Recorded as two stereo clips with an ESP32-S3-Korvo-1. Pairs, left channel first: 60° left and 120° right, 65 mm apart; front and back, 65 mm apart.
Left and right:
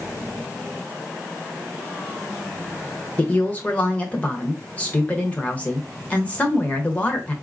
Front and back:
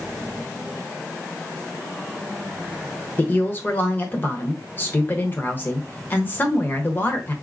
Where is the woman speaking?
15° left, 1.0 m.